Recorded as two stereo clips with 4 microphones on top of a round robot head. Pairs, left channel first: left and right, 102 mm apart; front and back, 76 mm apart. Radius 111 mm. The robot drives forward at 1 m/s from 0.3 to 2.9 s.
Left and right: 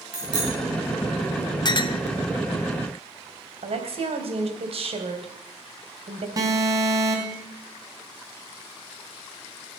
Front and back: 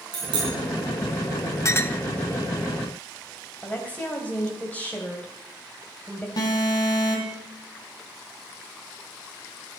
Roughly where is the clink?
Ahead left.